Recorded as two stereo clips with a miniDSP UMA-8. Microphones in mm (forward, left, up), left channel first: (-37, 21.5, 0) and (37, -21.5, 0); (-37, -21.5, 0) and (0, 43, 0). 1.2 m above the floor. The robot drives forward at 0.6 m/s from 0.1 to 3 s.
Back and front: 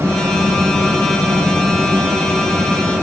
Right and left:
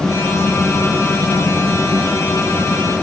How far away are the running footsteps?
No running footsteps in this recording.